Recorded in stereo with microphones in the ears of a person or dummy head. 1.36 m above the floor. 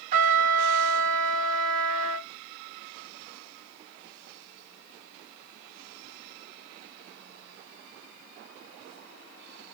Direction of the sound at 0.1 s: 45° right (ahead or behind).